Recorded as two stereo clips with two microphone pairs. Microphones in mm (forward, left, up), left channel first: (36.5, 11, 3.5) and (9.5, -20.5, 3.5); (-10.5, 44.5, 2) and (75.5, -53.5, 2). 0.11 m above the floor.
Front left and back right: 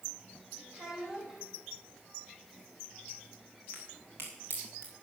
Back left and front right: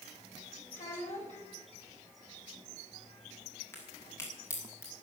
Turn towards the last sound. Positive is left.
turn(degrees=-155)